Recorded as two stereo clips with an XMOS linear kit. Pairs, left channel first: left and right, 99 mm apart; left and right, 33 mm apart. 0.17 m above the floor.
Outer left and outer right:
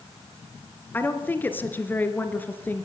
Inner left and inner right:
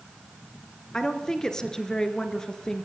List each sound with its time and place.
0.9 s a woman speaking: 20° left (ahead or behind), 2.5 m